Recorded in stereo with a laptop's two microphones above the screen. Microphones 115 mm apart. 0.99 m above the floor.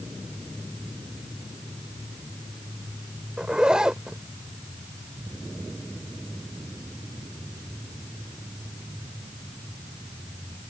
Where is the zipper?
10° right (ahead or behind).